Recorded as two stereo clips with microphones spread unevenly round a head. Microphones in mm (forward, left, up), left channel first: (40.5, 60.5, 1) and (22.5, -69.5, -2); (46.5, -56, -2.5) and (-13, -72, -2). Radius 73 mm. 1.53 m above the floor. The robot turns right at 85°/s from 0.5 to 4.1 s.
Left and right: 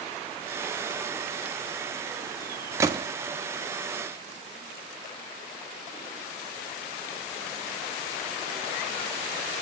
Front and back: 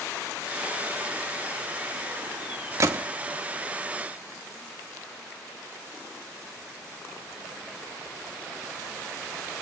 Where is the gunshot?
165° right, 1.2 m; by 3.0 s 145° right, 1.2 m.